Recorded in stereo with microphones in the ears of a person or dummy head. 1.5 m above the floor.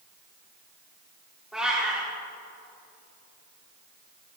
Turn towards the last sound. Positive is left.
turn(degrees=-5)  # may be behind; listen again after turning